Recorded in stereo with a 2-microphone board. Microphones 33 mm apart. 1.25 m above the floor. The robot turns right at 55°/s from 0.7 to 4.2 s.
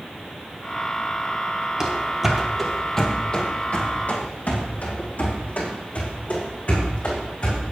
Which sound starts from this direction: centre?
Running footsteps, at 1.8 s.